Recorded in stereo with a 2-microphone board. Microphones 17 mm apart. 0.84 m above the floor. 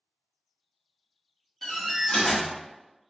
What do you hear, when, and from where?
1.6 s a door slam: 25° left (ahead or behind), 1.4 m